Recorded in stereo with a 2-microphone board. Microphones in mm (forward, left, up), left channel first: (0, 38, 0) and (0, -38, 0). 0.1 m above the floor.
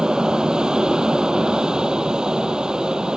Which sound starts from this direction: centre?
An aircraft, at 0.0 s.